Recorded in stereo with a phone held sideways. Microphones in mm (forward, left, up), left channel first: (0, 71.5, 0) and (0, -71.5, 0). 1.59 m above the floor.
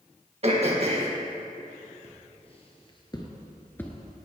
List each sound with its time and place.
0.4 s throat clearing: 45° right (ahead or behind), 1.7 m
2.0 s footsteps: 50° left (ahead or behind), 2.5 m; by 4.2 s centre (ahead or behind), 1.5 m